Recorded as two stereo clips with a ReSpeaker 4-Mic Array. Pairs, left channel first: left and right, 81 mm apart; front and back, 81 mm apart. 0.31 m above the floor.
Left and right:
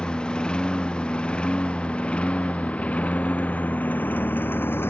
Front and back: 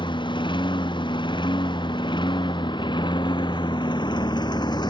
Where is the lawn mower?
10° left; by 4.9 s 30° left.